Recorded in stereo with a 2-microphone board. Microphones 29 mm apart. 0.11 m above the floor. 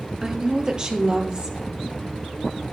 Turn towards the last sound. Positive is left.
turn(degrees=-35)  # may be behind; listen again after turning